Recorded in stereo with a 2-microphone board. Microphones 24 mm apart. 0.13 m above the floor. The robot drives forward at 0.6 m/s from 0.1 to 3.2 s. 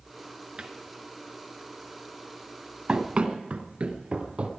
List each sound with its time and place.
0.6 s a cupboard door: 45° right (ahead or behind), 1.4 m
2.9 s running footsteps: 55° right (ahead or behind), 2 m; by 4.5 s 50° right (ahead or behind), 3 m